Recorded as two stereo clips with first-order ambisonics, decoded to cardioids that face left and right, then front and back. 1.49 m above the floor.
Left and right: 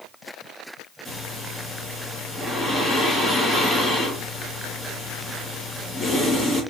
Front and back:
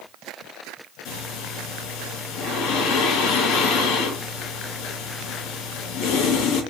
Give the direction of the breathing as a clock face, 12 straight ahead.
12 o'clock.